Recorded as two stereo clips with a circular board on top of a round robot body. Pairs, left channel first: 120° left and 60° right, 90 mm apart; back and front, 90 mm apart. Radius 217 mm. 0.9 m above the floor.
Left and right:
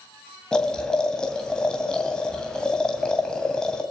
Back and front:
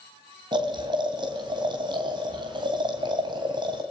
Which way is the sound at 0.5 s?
40° left.